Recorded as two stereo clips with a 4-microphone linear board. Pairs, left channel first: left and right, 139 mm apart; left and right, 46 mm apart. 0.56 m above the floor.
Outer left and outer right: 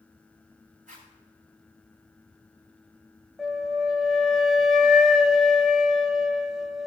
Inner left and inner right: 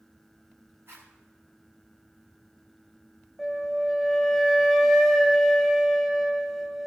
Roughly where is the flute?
Centre.